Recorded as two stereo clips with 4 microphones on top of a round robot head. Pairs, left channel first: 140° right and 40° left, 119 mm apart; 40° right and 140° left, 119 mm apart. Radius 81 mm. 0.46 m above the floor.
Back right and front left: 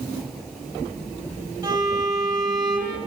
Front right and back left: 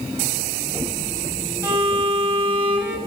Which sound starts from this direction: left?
A violin, at 1.6 s.